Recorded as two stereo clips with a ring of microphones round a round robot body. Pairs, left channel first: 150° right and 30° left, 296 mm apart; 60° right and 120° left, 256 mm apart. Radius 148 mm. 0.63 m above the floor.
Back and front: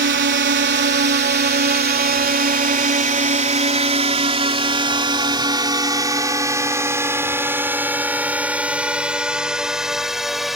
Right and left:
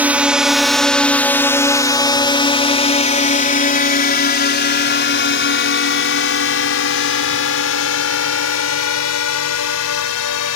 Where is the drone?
40° left; by 10.6 s 60° right.